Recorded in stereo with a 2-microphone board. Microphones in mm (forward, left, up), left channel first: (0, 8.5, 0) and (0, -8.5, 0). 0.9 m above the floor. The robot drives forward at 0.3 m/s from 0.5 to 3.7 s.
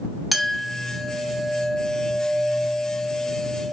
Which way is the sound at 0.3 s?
10° right (ahead or behind).